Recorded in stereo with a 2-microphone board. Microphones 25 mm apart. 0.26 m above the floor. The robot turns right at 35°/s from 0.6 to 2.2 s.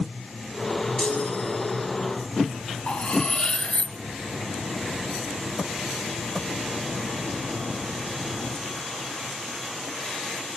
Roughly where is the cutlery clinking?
Left.